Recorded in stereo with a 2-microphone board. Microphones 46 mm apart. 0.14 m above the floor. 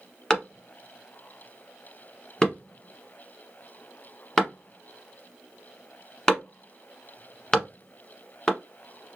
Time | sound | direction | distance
0.3 | a clap | 15° left (ahead or behind) | 1.0 m